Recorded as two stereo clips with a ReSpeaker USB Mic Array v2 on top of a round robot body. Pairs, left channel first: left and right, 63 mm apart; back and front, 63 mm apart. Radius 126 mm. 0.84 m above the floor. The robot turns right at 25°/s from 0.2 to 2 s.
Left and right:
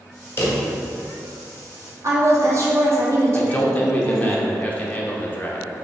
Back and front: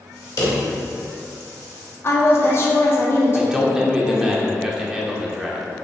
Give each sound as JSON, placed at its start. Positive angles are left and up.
{"t": 0.4, "sound": "a drawer", "azimuth_deg": 145, "distance_m": 1.2}
{"t": 2.0, "sound": "a woman speaking", "azimuth_deg": -130, "distance_m": 1.2}
{"t": 3.4, "sound": "a man speaking", "azimuth_deg": 60, "distance_m": 0.9}